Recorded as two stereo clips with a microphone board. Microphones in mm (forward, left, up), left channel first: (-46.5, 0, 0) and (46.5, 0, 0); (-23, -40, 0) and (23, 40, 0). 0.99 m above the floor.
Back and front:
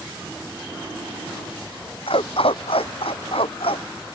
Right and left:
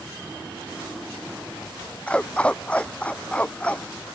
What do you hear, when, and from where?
2.1 s a dog barking: 165° left